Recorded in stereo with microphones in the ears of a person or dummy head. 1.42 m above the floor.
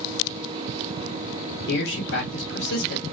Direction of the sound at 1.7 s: 65° left (ahead or behind).